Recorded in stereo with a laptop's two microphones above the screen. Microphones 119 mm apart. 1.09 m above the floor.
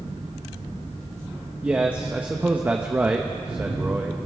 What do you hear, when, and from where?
1.6 s a man speaking: 15° right (ahead or behind), 1.0 m